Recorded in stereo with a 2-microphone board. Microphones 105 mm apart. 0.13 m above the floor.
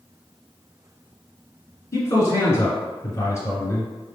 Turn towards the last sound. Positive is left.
turn(degrees=30)  # may be behind; listen again after turning